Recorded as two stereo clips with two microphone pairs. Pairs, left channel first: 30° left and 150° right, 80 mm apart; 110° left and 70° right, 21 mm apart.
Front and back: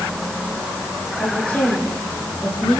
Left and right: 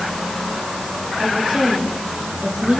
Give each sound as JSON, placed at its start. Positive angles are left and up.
{"t": 1.2, "sound": "a woman speaking", "azimuth_deg": -40, "distance_m": 9.0}